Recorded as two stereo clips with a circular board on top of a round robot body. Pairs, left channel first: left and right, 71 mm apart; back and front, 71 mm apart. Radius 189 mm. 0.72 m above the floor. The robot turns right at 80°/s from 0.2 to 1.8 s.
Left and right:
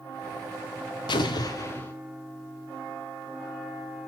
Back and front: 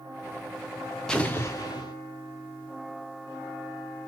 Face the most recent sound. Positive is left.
turn(degrees=155)